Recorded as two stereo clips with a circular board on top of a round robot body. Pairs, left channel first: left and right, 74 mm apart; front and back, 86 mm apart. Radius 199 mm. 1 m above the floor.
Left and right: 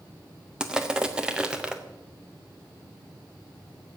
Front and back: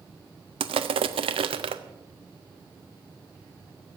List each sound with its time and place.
0.6 s crushing: 170° right, 0.5 m